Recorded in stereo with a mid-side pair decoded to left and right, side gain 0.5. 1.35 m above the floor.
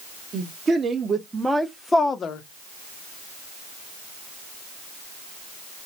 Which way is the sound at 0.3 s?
40° right.